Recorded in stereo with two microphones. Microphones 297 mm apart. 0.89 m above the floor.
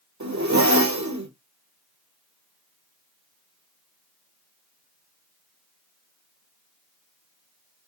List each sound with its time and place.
0.2 s a zipper: 70° right (ahead or behind), 2.5 m